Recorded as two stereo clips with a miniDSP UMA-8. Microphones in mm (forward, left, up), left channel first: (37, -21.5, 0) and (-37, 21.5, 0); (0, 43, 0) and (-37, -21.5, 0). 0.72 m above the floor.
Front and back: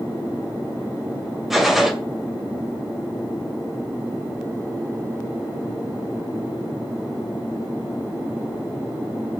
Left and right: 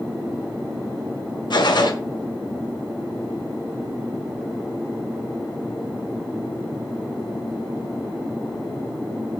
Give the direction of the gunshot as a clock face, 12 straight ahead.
10 o'clock.